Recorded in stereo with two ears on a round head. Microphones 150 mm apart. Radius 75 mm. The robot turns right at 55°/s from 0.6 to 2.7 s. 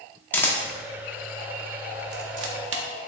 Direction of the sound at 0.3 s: 10° left (ahead or behind).